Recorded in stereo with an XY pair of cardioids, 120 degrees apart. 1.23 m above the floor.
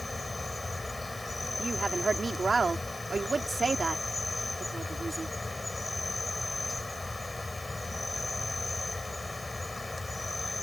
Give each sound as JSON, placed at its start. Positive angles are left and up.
{"t": 0.0, "sound": "an insect", "azimuth_deg": 10}
{"t": 1.6, "sound": "a woman speaking", "azimuth_deg": -25}